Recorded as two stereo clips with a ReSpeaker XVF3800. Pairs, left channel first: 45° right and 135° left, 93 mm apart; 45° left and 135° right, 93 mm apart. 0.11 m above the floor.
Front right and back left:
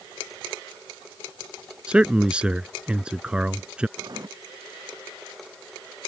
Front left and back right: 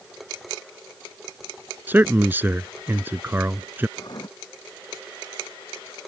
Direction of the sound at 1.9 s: 165° right.